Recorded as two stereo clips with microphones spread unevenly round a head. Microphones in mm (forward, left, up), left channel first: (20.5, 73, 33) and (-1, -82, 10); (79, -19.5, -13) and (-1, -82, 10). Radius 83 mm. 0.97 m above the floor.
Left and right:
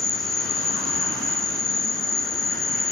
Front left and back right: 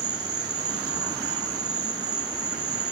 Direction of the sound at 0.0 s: 170° left.